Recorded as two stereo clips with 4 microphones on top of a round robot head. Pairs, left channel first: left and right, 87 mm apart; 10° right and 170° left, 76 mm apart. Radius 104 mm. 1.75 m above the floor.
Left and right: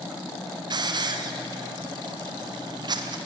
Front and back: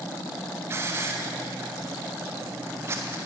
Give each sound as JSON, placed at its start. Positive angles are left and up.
{"t": 0.7, "sound": "a hiss", "azimuth_deg": -130, "distance_m": 0.7}